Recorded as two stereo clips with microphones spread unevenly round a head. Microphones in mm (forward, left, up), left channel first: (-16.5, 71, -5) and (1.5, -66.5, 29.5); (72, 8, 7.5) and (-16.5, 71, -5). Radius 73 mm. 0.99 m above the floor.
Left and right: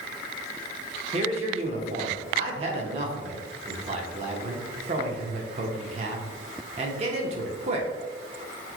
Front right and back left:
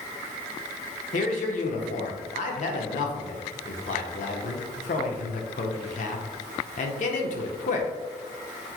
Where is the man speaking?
30° right, 0.6 m.